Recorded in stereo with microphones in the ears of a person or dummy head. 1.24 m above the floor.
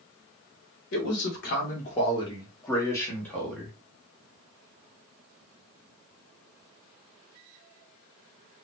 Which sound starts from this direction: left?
A man speaking, at 0.9 s.